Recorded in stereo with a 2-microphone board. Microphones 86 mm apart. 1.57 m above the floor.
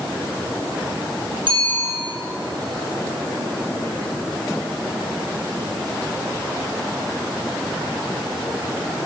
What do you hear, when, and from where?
1.5 s a bicycle bell: 70° right (ahead or behind), 7 m